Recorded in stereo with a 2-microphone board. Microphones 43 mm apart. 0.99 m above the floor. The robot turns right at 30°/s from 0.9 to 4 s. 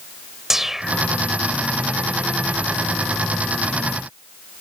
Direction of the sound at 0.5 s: 10° right (ahead or behind).